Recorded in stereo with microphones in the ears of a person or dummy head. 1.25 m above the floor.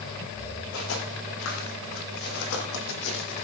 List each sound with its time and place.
0.7 s footsteps: 70° left (ahead or behind), 4 m; by 3.5 s 65° left (ahead or behind), 2.5 m